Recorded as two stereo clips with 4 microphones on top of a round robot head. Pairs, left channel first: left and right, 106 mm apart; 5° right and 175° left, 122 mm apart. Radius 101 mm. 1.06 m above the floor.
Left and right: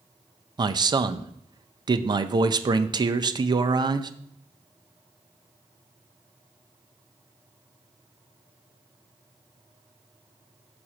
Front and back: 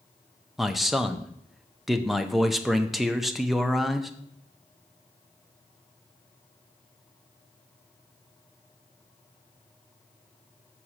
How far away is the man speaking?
About 0.5 m.